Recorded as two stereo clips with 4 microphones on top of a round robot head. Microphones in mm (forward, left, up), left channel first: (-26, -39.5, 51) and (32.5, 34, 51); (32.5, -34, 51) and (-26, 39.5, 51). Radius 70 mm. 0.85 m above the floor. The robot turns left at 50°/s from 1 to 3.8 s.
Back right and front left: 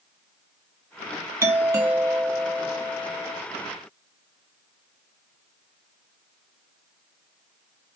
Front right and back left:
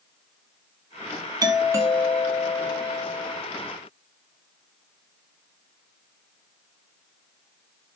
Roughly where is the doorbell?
Left.